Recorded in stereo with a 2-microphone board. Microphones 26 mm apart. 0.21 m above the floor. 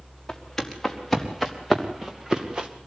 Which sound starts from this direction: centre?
Footsteps, at 0.3 s.